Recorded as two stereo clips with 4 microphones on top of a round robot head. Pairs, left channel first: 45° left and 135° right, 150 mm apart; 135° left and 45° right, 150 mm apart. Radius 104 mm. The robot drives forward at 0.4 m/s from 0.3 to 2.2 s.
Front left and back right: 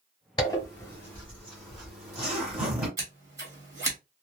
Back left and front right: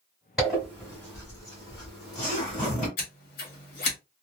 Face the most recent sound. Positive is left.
turn(degrees=155)